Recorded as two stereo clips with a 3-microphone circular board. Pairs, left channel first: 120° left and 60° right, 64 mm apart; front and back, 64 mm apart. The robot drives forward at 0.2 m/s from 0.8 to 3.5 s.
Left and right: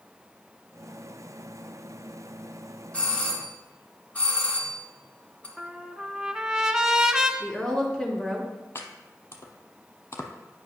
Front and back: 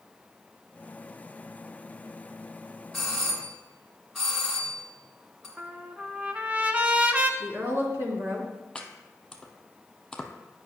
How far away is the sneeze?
No sneeze in this recording.